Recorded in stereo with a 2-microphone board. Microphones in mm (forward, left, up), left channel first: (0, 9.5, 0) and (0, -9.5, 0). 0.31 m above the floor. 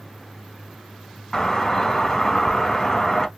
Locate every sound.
1.3 s a doorbell: 20° left (ahead or behind), 1.7 m